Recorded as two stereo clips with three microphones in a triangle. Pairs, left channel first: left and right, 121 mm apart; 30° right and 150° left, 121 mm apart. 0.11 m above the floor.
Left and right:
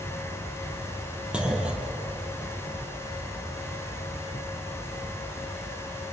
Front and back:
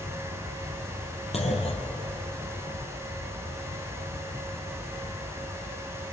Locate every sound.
1.3 s a clunk: 10° right, 3 m